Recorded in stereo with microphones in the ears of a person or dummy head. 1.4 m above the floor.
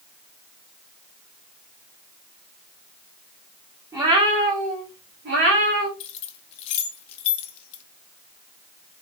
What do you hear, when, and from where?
3.9 s a cat meowing: 20° right (ahead or behind), 1.2 m; by 5.9 s 65° right (ahead or behind), 1.5 m
6.0 s keys jangling: 45° left (ahead or behind), 0.5 m